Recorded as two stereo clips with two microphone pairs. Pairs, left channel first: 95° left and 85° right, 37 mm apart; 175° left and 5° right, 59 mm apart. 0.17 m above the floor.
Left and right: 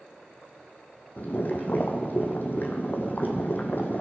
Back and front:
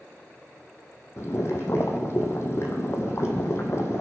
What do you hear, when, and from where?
1.2 s boiling: 130° left, 2 m